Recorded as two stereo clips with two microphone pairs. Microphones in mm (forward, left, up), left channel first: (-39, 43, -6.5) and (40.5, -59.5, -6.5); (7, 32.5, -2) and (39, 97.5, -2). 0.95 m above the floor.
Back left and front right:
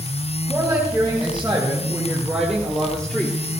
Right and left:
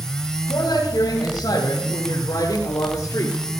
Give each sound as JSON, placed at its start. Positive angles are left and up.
{"t": 0.5, "sound": "a woman speaking", "azimuth_deg": -125, "distance_m": 5.0}